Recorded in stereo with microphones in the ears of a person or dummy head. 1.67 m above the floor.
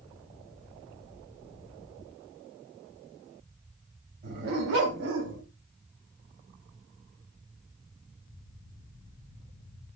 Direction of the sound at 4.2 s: 55° right (ahead or behind).